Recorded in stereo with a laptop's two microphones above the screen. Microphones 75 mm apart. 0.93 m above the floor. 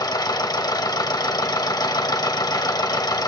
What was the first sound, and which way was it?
A machine running, 65° left (ahead or behind).